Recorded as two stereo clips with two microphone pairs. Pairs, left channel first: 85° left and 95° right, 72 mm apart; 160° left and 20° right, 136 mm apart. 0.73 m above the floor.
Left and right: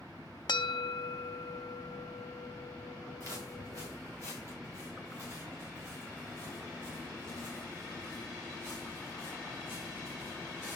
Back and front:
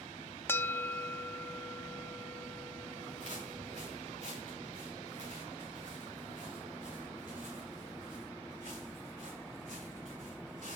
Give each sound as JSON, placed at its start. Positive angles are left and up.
{"t": 0.5, "sound": "a bell", "azimuth_deg": 85, "distance_m": 0.6}
{"t": 3.2, "sound": "footsteps", "azimuth_deg": -50, "distance_m": 5.5}